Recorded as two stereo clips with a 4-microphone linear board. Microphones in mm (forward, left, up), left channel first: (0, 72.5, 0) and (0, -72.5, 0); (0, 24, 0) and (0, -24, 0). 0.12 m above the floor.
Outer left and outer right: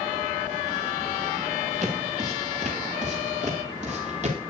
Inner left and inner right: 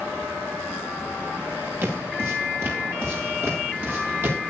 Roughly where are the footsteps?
Right.